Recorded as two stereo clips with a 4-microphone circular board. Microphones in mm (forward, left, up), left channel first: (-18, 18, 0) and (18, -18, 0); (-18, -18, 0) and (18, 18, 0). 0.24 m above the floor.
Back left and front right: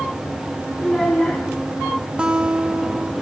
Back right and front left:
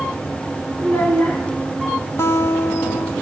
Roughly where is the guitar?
Behind right.